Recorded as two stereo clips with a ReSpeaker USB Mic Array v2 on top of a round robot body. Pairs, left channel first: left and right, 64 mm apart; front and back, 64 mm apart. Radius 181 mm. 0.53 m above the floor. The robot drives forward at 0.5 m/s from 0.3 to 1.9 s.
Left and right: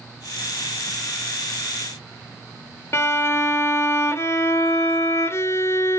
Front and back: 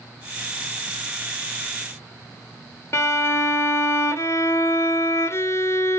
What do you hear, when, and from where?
2.9 s a violin: 45° left, 1.3 m